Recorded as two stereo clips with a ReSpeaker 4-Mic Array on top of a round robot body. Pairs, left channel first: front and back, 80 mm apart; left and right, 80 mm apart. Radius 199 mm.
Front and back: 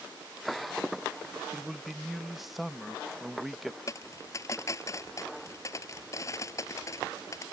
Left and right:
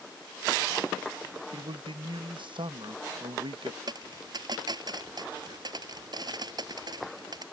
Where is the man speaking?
90° right.